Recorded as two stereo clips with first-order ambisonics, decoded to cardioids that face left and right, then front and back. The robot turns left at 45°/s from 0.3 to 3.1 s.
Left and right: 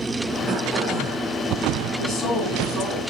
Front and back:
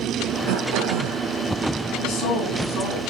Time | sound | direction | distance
0.5 | throat clearing | 165° right | 3 m
2.0 | a woman speaking | 30° left | 6.5 m